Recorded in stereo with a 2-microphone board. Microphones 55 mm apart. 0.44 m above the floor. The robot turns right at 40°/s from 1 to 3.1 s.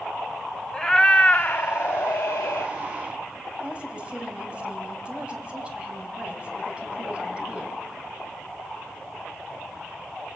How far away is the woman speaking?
About 3.5 m.